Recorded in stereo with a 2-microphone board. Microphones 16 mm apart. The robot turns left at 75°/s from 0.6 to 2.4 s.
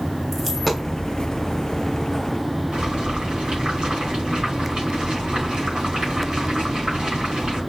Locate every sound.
0.3 s a dropped coin: 10° left (ahead or behind), 1.3 m; by 0.9 s 10° right (ahead or behind), 1.3 m
2.7 s boiling: 60° right (ahead or behind), 3.5 m